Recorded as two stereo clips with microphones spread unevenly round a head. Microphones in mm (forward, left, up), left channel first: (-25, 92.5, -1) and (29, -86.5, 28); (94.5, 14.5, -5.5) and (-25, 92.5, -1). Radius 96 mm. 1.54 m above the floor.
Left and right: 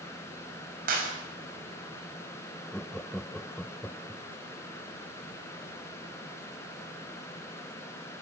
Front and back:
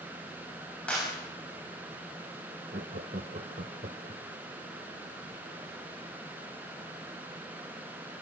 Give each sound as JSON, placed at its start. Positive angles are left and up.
{"t": 0.9, "sound": "a clap", "azimuth_deg": -120, "distance_m": 6.5}
{"t": 2.7, "sound": "laughter", "azimuth_deg": -165, "distance_m": 1.1}